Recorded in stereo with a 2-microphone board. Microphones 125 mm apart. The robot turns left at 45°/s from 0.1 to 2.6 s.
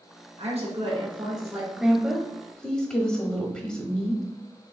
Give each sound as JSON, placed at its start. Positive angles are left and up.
{"t": 0.4, "sound": "a woman speaking", "azimuth_deg": -105, "distance_m": 2.0}
{"t": 1.8, "sound": "a woman speaking", "side_deg": -5, "distance_m": 0.9}